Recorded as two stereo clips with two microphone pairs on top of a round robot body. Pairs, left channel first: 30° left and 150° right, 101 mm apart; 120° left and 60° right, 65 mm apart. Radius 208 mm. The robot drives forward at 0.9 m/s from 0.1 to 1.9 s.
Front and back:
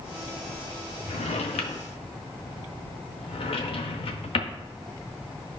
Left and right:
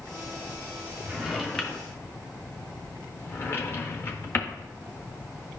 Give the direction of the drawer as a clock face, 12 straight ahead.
11 o'clock.